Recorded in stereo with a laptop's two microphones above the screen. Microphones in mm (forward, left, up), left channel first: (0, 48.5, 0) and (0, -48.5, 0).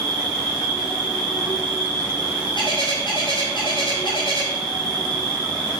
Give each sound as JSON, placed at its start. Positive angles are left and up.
{"t": 0.0, "sound": "an insect", "side_deg": 40, "distance_m": 5.0}
{"t": 2.5, "sound": "a bird", "side_deg": 55, "distance_m": 5.0}